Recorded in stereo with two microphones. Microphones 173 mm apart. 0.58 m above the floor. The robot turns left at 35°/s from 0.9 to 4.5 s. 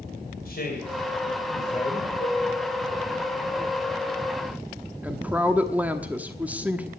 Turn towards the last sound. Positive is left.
turn(degrees=-10)  # may be behind; listen again after turning